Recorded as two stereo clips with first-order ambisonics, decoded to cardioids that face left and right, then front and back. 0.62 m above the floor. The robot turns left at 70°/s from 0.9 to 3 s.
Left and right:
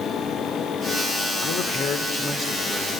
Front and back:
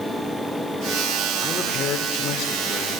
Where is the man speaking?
70° left, 1.9 m; by 3.0 s 40° right, 1.9 m.